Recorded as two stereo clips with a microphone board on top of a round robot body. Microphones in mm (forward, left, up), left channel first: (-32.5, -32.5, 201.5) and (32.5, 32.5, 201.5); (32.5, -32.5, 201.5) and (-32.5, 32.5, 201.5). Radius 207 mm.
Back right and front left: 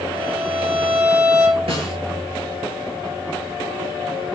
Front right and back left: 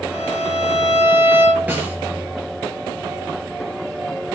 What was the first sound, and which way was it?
A violin, 60° left.